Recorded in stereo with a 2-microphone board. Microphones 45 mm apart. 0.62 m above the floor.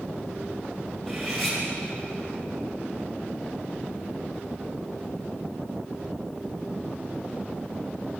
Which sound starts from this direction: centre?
Cutlery clinking, at 1.1 s.